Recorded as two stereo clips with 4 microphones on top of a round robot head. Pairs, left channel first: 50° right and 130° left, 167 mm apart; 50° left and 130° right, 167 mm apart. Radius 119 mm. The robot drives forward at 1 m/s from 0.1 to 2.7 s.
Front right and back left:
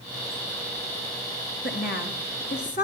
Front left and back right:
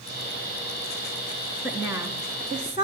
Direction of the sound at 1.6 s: 50° right.